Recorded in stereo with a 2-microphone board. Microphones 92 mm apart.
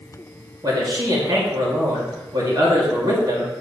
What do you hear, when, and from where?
0.6 s a man speaking: 45° right (ahead or behind), 1.9 m